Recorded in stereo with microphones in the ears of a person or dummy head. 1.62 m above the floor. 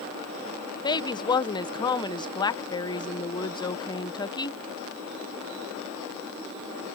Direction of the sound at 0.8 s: 20° left (ahead or behind).